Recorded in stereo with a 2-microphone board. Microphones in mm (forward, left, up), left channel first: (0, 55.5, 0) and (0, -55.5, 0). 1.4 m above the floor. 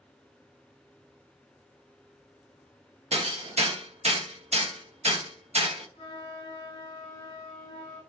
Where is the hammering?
70° right (ahead or behind), 0.7 m.